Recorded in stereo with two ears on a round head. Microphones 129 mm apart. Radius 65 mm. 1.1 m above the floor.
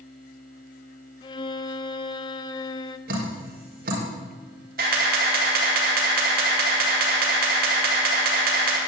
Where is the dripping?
80° right, 5 m.